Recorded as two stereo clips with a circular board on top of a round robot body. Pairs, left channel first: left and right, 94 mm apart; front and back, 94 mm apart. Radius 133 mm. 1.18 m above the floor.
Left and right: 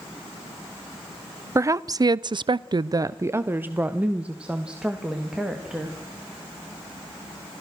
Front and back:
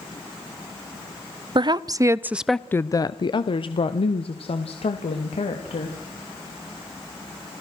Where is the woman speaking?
145° right, 1.0 m; by 6.0 s 5° right, 2.5 m.